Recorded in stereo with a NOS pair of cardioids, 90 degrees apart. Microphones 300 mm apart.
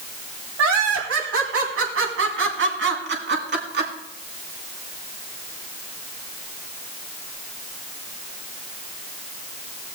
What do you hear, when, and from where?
0.6 s laughter: 65° right, 2.5 m; by 3.9 s 35° right, 4 m